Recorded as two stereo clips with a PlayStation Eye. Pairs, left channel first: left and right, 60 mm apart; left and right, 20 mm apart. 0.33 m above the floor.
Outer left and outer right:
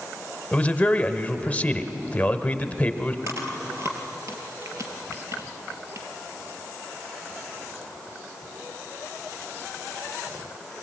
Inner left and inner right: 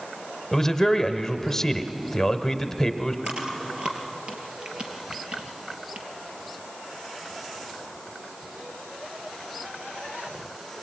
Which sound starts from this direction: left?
A man speaking, at 0.5 s.